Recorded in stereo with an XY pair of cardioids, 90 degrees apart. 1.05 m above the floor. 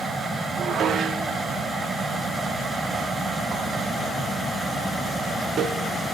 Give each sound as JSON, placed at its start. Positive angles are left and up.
{"t": 0.6, "sound": "dishes clattering", "azimuth_deg": -70, "distance_m": 1.5}